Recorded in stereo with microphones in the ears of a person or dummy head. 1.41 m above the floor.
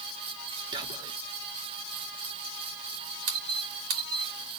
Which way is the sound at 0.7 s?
25° right (ahead or behind).